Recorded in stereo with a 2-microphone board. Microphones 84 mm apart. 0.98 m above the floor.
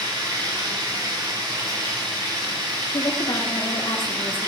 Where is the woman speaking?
75° left (ahead or behind), 1.5 m.